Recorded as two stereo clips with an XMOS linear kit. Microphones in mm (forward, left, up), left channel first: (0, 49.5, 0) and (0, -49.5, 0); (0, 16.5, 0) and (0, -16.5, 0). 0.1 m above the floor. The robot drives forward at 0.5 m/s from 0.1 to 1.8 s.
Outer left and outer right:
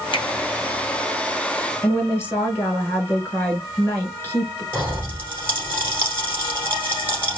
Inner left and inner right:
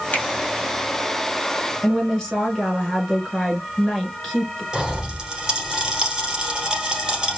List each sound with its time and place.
0.1 s a finger snap: 55° left (ahead or behind), 1.8 m
1.8 s a woman speaking: 25° left (ahead or behind), 1.1 m
4.7 s a pop: 20° right (ahead or behind), 1.4 m